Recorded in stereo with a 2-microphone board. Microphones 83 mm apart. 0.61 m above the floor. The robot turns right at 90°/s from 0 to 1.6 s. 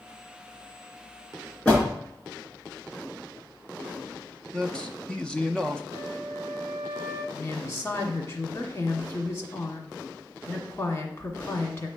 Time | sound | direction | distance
1.6 | a door slam | 20° left (ahead or behind) | 4.5 m
4.5 | a man speaking | 10° left (ahead or behind) | 0.5 m
5.9 | a flute | 45° left (ahead or behind) | 1.0 m
7.3 | a woman speaking | 35° left (ahead or behind) | 1.5 m